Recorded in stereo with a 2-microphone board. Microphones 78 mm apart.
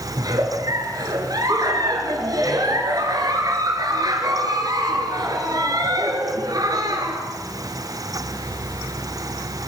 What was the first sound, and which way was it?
A giggle, 55° right (ahead or behind).